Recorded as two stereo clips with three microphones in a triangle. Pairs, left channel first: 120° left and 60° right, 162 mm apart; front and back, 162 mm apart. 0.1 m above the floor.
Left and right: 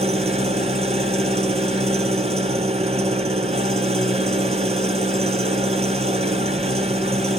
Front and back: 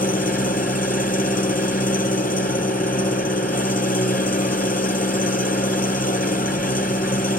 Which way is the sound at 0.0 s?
15° right.